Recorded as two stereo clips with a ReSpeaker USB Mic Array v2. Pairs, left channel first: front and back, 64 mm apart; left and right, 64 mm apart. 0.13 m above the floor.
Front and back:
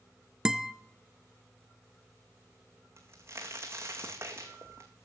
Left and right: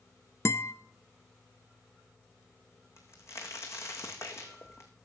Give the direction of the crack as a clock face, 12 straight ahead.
8 o'clock.